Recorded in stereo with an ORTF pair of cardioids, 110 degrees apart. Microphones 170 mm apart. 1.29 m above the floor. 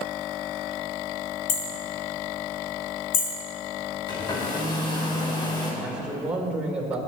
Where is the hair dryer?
30° left, 4 m.